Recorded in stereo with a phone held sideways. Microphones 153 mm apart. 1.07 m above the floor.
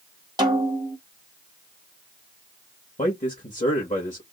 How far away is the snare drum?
About 1.2 m.